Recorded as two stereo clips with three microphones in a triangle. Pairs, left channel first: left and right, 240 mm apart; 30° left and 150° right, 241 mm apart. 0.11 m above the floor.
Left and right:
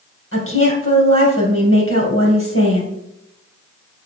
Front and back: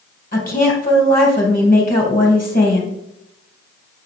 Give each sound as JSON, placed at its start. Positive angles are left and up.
{"t": 0.3, "sound": "a woman speaking", "azimuth_deg": 80, "distance_m": 2.5}